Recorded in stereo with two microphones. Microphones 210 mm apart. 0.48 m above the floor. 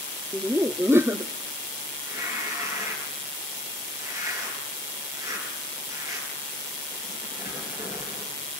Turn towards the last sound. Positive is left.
turn(degrees=-15)  # may be behind; listen again after turning